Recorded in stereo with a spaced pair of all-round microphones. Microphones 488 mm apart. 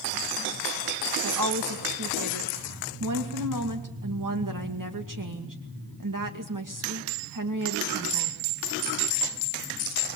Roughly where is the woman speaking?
Right.